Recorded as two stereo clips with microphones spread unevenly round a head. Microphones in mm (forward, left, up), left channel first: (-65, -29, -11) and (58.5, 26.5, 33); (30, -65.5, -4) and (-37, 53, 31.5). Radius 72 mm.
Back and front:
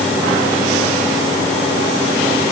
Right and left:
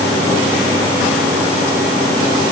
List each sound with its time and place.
Only background noise.